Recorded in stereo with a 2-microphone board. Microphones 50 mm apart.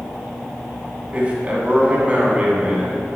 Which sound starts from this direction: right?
A man speaking, at 1.1 s.